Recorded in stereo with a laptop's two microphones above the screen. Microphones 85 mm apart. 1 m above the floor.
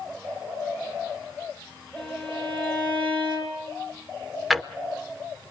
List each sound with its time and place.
2.0 s a violin: 15° left (ahead or behind), 4 m
4.5 s a drawer: centre (ahead or behind), 0.6 m